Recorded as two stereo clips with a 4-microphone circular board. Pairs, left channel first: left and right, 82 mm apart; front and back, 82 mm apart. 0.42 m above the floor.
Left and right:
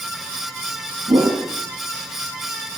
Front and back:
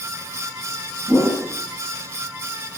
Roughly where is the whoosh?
Right.